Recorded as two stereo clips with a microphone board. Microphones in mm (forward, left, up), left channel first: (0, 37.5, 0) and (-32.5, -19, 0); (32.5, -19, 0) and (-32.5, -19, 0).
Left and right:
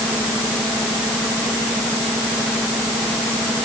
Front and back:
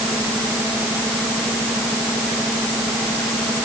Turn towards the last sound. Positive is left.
No sound to turn to.